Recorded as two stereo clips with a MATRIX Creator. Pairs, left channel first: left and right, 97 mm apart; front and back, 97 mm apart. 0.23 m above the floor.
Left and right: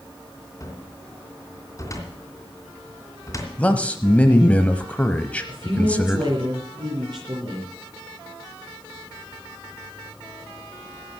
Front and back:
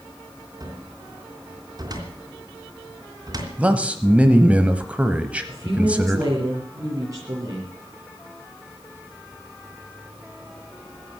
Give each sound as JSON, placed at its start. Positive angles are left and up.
{"t": 0.6, "sound": "a cupboard door", "azimuth_deg": 140, "distance_m": 3.0}
{"t": 3.6, "sound": "a man speaking", "azimuth_deg": 135, "distance_m": 0.9}
{"t": 5.5, "sound": "a woman speaking", "azimuth_deg": -130, "distance_m": 5.0}